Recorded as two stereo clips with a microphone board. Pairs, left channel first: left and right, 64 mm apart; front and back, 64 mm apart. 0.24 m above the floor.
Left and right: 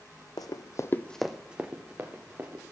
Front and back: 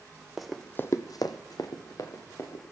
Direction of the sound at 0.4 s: 95° left.